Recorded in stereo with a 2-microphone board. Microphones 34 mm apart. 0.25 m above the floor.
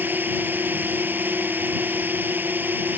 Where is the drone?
75° right (ahead or behind).